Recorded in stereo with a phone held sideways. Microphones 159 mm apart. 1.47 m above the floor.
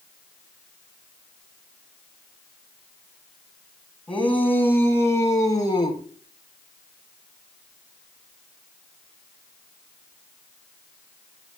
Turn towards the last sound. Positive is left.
turn(degrees=30)  # may be behind; listen again after turning